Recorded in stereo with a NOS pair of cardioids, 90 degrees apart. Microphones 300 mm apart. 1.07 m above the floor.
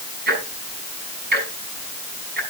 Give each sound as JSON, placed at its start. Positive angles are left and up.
{"t": 0.3, "sound": "ticking", "azimuth_deg": -35, "distance_m": 6.0}